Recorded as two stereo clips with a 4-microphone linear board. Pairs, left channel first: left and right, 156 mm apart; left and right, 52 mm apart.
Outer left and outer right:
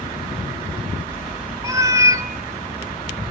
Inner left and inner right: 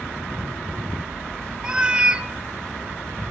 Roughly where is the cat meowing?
Right.